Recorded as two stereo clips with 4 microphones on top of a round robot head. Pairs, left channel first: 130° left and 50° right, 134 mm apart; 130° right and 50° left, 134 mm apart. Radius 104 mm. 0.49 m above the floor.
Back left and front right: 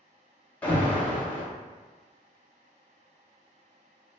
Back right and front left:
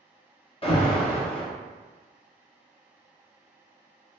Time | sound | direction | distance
0.6 | an alarm | 155° right | 1.0 m